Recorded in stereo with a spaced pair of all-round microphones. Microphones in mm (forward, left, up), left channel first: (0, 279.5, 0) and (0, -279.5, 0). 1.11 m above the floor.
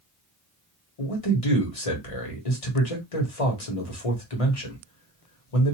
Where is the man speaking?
80° left, 1.4 m.